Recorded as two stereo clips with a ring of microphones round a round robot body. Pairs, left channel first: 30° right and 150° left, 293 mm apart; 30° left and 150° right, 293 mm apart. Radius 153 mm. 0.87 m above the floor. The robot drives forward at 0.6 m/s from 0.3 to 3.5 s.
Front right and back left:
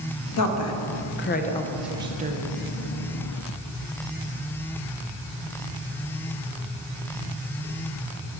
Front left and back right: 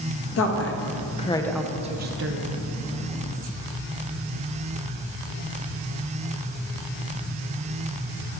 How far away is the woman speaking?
About 0.9 m.